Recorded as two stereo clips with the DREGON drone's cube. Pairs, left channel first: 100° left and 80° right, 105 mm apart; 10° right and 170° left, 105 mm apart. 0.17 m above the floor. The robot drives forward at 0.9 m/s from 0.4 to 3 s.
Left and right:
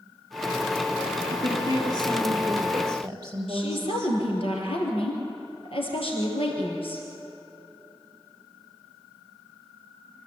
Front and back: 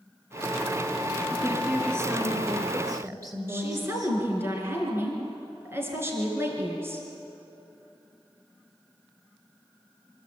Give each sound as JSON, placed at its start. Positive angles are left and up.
{"t": 1.3, "sound": "a woman speaking", "azimuth_deg": -115, "distance_m": 3.0}
{"t": 3.5, "sound": "a woman speaking", "azimuth_deg": 105, "distance_m": 3.5}